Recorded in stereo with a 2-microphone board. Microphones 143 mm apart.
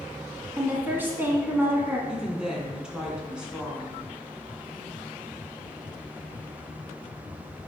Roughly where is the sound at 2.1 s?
Centre.